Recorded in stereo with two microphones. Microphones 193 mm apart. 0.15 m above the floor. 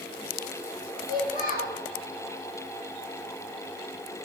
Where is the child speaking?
45° left (ahead or behind), 2.5 m.